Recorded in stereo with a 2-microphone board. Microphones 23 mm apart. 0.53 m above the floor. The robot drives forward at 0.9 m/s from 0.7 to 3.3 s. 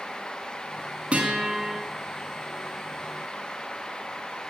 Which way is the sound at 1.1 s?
60° right (ahead or behind).